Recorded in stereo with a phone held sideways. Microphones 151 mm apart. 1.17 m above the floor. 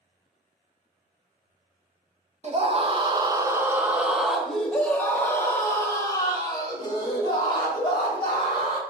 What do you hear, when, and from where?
2.4 s a scream: 45° right (ahead or behind), 1.4 m; by 8.8 s 35° left (ahead or behind), 4 m